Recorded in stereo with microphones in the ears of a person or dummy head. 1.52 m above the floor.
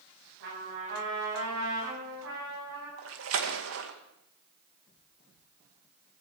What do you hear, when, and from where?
0.4 s a trumpet: 75° right (ahead or behind), 9.5 m
3.0 s a splash: 80° right, 2 m